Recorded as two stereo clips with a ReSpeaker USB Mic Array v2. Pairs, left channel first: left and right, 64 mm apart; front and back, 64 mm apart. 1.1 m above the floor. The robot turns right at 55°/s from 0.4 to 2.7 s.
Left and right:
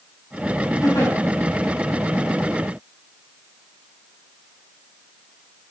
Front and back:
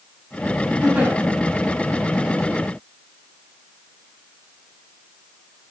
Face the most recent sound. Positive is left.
turn(degrees=-155)